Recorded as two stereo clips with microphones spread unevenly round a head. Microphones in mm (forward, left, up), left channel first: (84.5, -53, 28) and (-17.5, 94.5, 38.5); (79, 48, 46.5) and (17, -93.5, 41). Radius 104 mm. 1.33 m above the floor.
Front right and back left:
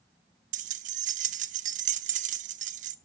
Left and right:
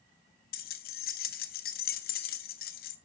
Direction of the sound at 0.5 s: 90° left.